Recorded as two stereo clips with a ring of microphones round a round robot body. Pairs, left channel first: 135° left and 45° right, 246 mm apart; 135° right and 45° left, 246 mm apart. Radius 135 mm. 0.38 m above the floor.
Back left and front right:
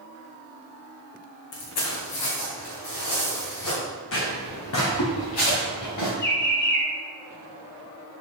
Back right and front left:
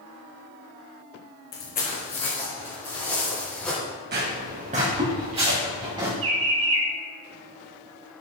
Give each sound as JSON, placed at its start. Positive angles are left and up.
{"t": 1.5, "sound": "footsteps", "azimuth_deg": 170, "distance_m": 2.0}
{"t": 4.1, "sound": "footsteps", "azimuth_deg": 95, "distance_m": 2.0}
{"t": 6.2, "sound": "a bird", "azimuth_deg": 85, "distance_m": 3.0}